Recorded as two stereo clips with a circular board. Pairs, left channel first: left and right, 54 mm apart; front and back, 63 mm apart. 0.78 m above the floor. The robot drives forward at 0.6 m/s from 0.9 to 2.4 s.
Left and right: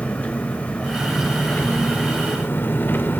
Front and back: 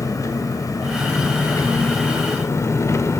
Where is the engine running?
25° left, 2.5 m; by 3.2 s 40° left, 2.0 m.